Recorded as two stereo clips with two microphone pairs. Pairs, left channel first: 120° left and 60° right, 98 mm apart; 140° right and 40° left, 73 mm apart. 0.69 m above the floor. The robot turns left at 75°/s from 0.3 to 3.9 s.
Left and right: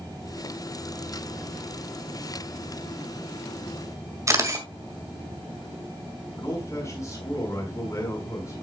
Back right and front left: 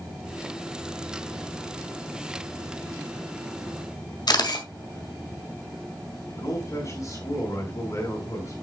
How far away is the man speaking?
About 5 m.